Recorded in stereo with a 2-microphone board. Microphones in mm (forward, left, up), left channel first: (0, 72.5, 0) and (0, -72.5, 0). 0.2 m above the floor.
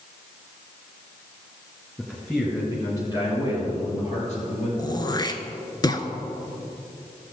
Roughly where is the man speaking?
Centre.